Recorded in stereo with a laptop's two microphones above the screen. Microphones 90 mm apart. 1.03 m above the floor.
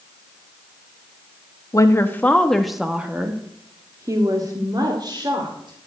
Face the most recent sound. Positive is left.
turn(degrees=-55)  # may be behind; listen again after turning